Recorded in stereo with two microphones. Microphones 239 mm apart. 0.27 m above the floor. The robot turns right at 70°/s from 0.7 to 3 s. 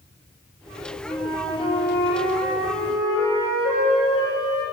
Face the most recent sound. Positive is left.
turn(degrees=120)